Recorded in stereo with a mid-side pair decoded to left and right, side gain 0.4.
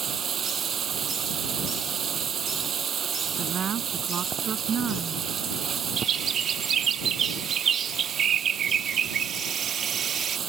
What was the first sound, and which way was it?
Running water, 55° right.